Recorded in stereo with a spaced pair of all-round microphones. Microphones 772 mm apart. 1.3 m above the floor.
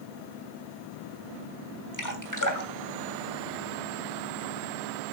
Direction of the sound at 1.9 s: 25° left (ahead or behind).